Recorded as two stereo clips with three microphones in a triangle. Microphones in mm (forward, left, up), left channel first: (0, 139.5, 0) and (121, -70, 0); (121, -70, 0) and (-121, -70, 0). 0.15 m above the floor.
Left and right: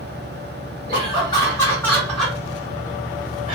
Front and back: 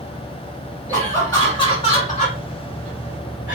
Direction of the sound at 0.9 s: 75° left.